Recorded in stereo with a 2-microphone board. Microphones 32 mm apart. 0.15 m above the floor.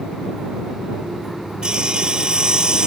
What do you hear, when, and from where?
1.6 s sawing: 25° right (ahead or behind)